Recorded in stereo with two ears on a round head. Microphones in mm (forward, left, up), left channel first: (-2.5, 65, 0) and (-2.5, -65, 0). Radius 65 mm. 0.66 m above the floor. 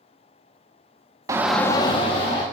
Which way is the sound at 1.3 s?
25° right (ahead or behind).